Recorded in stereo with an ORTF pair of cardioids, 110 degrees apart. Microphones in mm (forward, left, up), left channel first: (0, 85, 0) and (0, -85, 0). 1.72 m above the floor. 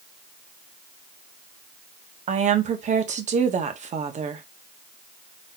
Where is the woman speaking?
45° right, 1.2 m.